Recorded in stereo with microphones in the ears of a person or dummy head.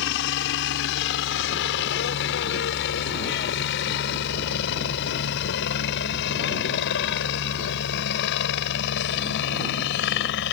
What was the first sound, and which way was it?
A helicopter, 60° left (ahead or behind).